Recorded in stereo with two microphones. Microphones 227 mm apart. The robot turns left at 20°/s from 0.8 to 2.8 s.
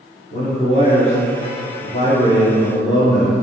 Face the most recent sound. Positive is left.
turn(degrees=40)